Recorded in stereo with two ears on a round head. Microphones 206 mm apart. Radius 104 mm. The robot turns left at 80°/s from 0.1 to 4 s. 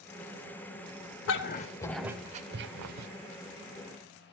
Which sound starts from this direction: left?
A dog barking, at 1.3 s.